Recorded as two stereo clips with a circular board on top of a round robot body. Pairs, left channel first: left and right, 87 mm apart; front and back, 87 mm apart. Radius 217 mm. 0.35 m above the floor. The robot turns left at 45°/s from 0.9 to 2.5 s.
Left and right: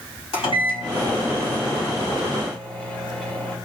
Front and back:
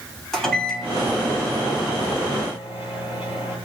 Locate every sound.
0.3 s a microwave: 85° left, 3.5 m; by 3.6 s 10° left, 3.5 m